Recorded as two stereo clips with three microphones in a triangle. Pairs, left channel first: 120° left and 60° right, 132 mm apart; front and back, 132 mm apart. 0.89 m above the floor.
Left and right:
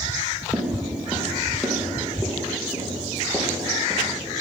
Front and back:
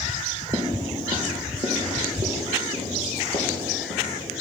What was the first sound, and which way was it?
Footsteps, 140° right.